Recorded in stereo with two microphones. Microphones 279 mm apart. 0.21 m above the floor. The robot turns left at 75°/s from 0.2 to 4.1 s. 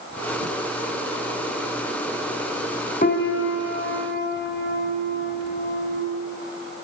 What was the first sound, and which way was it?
A piano, 140° left.